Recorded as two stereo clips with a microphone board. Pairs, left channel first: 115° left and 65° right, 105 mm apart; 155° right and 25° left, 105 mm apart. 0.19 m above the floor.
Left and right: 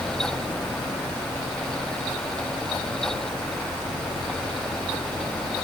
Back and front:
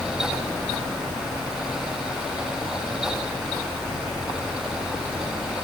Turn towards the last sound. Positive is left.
No sound to turn to.